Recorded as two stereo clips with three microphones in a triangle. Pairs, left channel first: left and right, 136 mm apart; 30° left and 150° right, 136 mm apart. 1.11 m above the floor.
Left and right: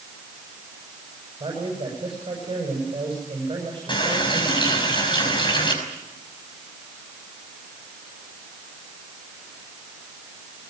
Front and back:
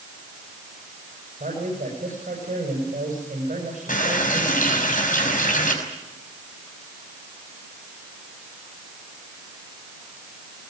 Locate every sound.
1.4 s a man speaking: 140° right, 7 m
3.9 s a running tap: 35° left, 5.5 m